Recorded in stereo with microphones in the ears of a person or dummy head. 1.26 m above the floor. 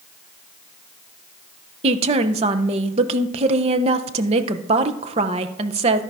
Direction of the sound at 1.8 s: 35° right (ahead or behind).